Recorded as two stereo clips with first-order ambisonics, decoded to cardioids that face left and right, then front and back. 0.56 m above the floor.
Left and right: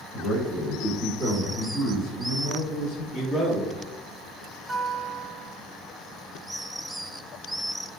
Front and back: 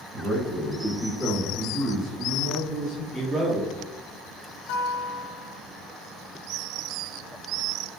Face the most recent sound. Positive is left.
turn(degrees=-15)